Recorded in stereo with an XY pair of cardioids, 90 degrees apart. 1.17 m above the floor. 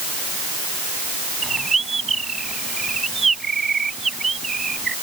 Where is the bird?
30° right.